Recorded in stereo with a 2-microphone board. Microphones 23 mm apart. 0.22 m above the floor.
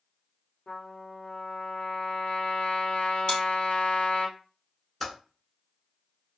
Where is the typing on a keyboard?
5° left (ahead or behind), 1.2 m.